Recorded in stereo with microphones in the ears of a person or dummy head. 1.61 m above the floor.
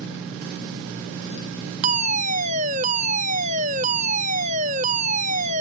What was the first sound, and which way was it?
A fire alarm, 35° right (ahead or behind).